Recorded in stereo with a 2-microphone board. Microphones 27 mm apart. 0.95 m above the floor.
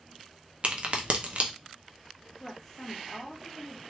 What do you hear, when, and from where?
0.6 s a crack: 50° right (ahead or behind), 0.6 m
2.4 s a woman speaking: 15° left (ahead or behind), 1.1 m